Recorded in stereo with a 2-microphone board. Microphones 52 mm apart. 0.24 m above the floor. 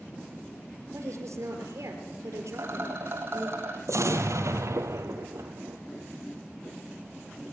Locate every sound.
0.9 s a woman speaking: 65° right (ahead or behind), 5 m
2.5 s a rattle: 50° right (ahead or behind), 4.5 m
3.9 s an explosion: 70° right (ahead or behind), 2 m